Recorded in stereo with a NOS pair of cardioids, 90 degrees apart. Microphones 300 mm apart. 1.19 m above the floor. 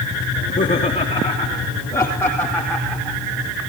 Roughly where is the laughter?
Ahead left.